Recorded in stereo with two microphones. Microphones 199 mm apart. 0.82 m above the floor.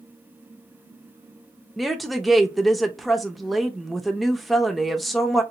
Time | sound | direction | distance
1.8 | a woman speaking | centre (ahead or behind) | 0.5 m